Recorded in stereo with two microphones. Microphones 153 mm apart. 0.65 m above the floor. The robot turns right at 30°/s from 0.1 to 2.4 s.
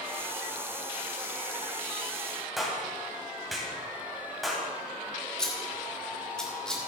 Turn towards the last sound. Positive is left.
turn(degrees=5)  # may be behind; listen again after turning